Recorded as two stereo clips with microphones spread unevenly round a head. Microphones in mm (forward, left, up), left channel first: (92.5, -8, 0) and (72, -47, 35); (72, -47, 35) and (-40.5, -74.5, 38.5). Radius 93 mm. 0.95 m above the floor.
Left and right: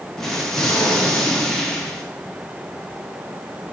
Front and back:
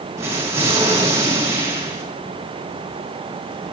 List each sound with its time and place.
0.2 s an explosion: 120° left, 0.9 m